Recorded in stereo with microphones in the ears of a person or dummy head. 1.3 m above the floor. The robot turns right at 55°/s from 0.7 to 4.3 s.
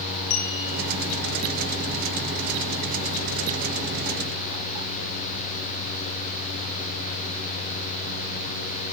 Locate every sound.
0.3 s a clink: 85° left, 9.5 m